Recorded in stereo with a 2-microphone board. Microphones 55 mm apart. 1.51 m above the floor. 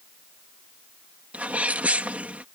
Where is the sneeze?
30° right (ahead or behind).